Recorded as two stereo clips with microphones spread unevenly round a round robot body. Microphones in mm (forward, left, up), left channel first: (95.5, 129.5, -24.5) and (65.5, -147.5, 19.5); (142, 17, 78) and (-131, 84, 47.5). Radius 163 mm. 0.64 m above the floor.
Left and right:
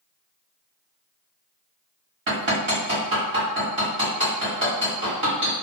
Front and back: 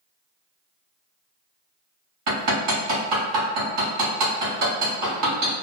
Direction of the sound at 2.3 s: 150° right.